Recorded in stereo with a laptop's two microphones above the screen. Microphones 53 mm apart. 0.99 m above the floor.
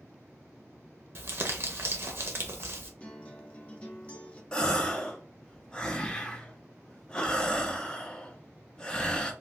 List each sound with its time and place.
1.1 s crumpling: 50° right (ahead or behind), 0.5 m
3.0 s a guitar: 25° left (ahead or behind), 0.6 m
4.5 s a gasp: 20° left (ahead or behind), 0.6 m